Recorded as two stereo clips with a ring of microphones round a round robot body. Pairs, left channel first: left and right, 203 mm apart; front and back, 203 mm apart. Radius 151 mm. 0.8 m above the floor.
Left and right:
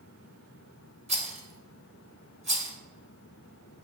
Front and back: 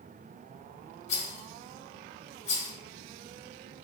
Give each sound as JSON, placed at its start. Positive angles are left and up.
{"t": 1.1, "sound": "a rattle", "azimuth_deg": -35, "distance_m": 1.2}